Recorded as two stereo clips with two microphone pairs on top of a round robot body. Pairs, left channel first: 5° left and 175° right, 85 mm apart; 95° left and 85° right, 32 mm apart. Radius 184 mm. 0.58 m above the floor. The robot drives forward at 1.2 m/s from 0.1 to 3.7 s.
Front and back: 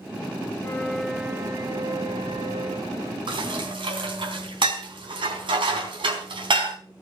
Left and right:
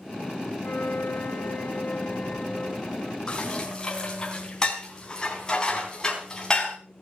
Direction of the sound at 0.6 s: 60° left.